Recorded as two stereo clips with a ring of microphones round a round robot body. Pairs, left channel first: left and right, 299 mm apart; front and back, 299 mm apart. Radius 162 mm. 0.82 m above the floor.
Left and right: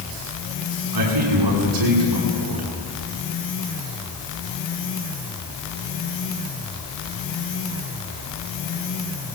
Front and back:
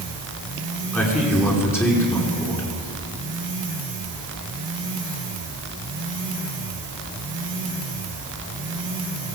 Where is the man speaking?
85° right, 9.5 m.